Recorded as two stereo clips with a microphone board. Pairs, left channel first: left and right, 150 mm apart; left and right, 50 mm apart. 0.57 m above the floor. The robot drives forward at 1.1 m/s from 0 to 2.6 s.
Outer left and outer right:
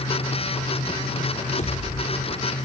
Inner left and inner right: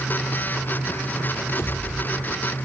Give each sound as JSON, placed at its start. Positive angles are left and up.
{"t": 1.6, "sound": "a pop", "side_deg": 55, "distance_m": 1.6}